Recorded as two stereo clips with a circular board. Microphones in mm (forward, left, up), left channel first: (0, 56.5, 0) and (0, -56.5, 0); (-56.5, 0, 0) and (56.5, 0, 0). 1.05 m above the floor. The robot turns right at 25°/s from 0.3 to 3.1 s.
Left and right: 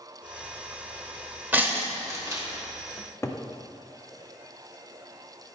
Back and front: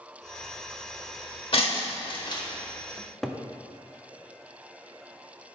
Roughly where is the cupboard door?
Left.